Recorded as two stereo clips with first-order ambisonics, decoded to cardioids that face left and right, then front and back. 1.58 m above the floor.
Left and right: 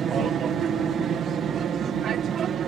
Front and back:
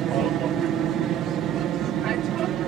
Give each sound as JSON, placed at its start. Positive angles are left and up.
{"t": 0.0, "sound": "an aircraft", "azimuth_deg": -145}